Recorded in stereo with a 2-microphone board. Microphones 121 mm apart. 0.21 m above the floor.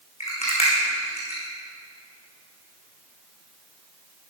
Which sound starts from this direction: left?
A rattle, at 0.2 s.